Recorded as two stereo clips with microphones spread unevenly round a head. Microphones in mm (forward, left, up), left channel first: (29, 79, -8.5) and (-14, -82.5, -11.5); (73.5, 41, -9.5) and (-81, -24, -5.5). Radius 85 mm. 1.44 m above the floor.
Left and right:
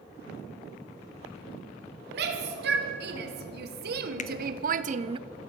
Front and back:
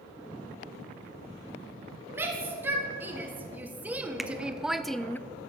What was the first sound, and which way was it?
A shout, 80° right.